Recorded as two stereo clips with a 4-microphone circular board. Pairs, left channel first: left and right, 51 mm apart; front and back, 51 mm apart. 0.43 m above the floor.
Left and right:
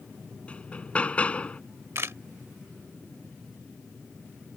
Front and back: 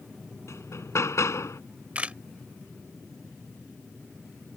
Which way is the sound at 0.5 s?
25° left.